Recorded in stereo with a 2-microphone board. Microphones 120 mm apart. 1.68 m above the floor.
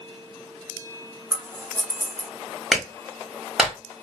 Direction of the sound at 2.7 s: 5° right (ahead or behind).